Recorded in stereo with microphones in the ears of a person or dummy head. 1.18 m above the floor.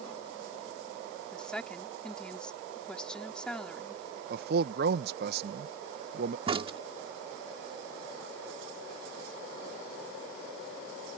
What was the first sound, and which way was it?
A woman speaking, 5° left (ahead or behind).